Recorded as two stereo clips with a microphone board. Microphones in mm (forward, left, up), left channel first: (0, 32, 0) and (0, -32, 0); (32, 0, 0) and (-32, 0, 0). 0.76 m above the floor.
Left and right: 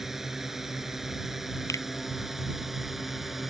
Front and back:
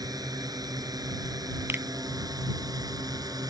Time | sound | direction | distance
0.0 | a drone | 175° right | ?
1.7 | a finger snap | 125° left | ?